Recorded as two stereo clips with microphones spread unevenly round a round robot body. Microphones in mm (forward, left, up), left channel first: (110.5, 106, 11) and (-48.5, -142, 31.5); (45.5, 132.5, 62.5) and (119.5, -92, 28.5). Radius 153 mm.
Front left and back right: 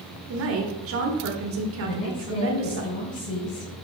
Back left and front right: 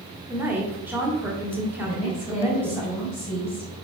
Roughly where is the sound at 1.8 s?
Ahead.